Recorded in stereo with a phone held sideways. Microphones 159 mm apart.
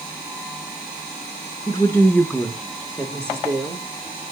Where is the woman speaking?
25° left (ahead or behind), 1.2 m; by 3.8 s 20° right (ahead or behind), 2 m.